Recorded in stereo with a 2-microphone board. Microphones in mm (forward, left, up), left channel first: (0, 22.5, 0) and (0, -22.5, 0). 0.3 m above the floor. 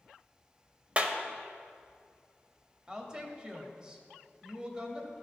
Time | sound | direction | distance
1.0 | a clap | 25° right (ahead or behind) | 0.7 m
2.9 | a woman speaking | 20° right (ahead or behind) | 1.1 m